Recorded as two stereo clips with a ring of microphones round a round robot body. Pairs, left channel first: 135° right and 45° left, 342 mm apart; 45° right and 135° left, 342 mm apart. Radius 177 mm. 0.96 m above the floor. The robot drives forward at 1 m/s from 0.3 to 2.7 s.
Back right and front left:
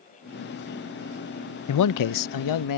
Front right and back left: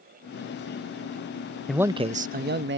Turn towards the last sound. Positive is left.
turn(degrees=-165)